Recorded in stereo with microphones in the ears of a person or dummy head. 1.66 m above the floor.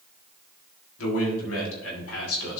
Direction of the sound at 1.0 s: 80° left.